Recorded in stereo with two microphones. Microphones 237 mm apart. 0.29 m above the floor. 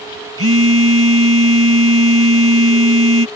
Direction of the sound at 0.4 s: 65° right (ahead or behind).